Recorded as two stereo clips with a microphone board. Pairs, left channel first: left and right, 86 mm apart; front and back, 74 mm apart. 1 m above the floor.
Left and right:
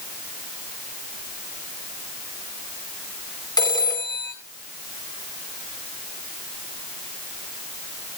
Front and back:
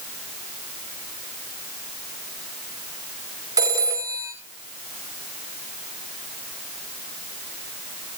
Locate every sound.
3.6 s a phone ringing: 135° left, 3 m